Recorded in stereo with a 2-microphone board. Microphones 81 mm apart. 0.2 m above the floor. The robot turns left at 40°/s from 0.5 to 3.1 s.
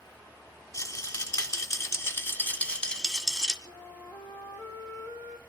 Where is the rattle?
100° left, 1.3 m; by 3.5 s 10° left, 1.3 m.